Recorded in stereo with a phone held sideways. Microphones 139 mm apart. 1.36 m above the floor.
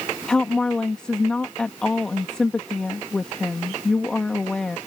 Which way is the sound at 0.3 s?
5° left (ahead or behind).